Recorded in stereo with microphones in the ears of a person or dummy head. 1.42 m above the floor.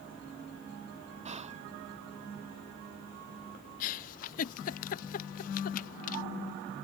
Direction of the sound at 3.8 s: 40° left (ahead or behind).